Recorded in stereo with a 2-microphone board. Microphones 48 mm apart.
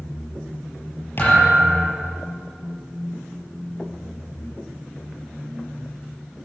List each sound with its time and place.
1.2 s a thud: 45° left (ahead or behind), 6.5 m